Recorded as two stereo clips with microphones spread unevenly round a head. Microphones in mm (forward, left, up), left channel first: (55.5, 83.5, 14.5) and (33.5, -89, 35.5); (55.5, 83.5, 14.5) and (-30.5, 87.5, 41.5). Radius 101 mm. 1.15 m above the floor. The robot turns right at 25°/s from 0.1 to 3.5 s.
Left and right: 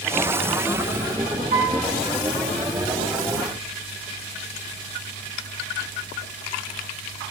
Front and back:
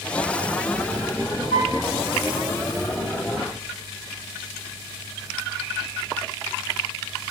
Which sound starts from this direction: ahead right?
A piano, at 1.5 s.